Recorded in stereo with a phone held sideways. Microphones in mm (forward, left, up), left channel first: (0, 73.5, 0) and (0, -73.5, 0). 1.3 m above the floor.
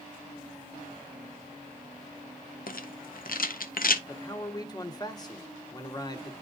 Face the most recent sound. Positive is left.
turn(degrees=25)  # may be behind; listen again after turning